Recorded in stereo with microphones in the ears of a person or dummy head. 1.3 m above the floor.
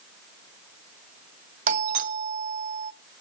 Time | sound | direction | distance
1.7 | a doorbell | 45° right (ahead or behind) | 1.1 m